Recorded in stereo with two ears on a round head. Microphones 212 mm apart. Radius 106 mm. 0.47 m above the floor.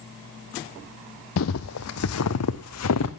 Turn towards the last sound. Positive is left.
turn(degrees=70)  # may be behind; listen again after turning